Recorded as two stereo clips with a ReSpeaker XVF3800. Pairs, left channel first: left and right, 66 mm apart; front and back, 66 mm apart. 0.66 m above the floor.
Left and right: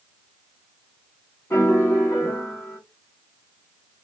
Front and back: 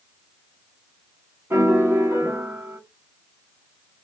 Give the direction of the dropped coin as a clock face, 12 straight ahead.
I don't hear a dropped coin.